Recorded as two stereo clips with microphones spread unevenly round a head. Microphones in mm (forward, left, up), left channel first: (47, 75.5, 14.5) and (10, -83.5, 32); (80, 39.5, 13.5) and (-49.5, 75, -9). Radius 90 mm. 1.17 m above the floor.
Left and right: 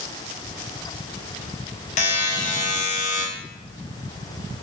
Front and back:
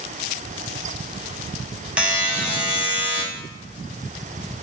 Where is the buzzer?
90° left, 0.7 m.